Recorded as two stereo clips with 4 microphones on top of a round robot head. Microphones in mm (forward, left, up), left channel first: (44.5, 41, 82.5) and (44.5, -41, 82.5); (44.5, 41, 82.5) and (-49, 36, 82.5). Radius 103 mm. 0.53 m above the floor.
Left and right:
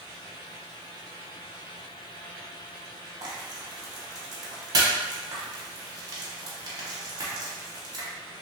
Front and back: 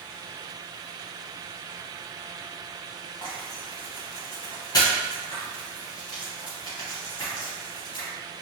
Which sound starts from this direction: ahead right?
Frying, at 3.2 s.